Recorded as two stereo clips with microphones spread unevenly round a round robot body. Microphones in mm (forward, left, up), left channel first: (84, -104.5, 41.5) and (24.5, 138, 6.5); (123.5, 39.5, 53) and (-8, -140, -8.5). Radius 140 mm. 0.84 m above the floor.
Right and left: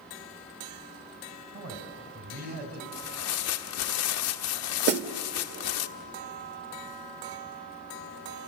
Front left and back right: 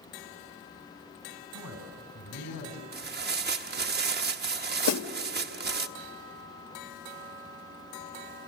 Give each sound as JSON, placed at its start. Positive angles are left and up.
{"t": 1.5, "sound": "a man speaking", "azimuth_deg": 75, "distance_m": 4.0}
{"t": 2.9, "sound": "tearing paper", "azimuth_deg": -105, "distance_m": 1.2}
{"t": 4.9, "sound": "a snare drum", "azimuth_deg": 55, "distance_m": 1.0}